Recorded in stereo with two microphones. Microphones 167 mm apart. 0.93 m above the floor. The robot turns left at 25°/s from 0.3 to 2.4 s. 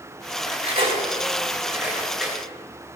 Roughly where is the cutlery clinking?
Right.